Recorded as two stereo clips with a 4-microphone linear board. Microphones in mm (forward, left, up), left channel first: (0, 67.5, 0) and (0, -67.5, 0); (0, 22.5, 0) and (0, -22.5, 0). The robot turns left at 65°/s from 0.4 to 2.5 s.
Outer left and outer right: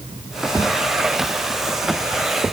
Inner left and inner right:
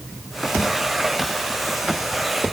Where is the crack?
I don't hear a crack.